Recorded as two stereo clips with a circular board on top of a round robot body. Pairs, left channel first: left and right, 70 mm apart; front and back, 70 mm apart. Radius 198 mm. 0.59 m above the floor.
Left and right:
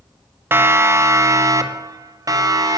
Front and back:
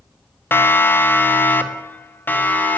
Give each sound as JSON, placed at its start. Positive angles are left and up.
{"t": 0.5, "sound": "a siren", "azimuth_deg": -45, "distance_m": 2.0}